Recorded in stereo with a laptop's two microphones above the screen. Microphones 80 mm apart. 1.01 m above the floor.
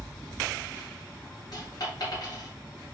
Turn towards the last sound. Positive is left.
turn(degrees=55)  # may be behind; listen again after turning